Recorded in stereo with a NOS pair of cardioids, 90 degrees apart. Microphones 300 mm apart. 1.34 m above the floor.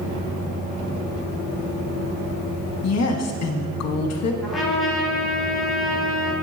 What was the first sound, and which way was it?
A woman speaking, 55° left.